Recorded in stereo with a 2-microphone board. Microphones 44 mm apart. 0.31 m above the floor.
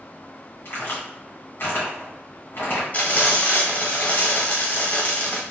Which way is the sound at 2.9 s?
40° left (ahead or behind).